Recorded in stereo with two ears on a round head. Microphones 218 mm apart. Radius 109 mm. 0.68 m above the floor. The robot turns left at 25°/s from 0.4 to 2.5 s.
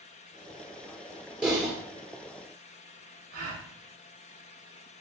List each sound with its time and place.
1.4 s typing on a keyboard: 5° right (ahead or behind), 2 m; by 1.7 s 5° left (ahead or behind), 2 m
3.3 s a gasp: 40° right (ahead or behind), 2.5 m